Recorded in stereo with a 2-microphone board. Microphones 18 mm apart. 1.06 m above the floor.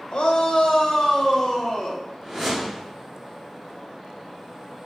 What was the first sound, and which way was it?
A shout, 60° left (ahead or behind).